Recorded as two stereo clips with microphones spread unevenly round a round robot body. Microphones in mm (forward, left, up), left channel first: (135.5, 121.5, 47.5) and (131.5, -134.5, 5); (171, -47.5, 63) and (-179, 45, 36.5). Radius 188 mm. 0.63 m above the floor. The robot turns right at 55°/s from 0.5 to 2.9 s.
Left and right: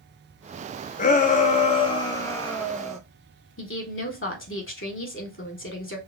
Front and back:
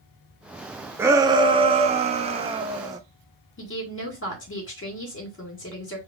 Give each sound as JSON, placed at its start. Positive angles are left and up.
{"t": 1.0, "sound": "a shout", "azimuth_deg": 105, "distance_m": 0.6}
{"t": 3.6, "sound": "a woman speaking", "azimuth_deg": 45, "distance_m": 2.0}